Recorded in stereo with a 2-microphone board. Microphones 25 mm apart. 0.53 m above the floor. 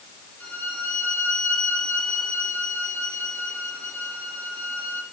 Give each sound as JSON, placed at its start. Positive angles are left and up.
{"t": 0.4, "sound": "a violin", "side_deg": 80, "distance_m": 5.0}